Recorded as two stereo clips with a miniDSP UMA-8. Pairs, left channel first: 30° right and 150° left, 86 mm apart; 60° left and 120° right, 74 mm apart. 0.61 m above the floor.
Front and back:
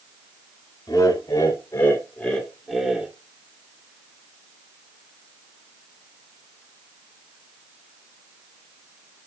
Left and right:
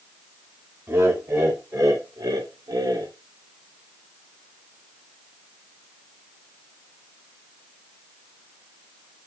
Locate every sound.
0.9 s laughter: 70° right, 2.5 m; by 3.1 s 135° right, 1.7 m